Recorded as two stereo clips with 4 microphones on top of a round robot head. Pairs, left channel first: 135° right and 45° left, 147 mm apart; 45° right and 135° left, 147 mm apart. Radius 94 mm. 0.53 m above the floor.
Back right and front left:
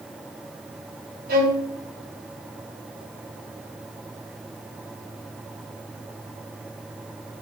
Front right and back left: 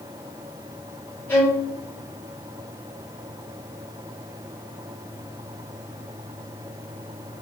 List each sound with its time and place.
1.3 s a violin: 30° left, 3.5 m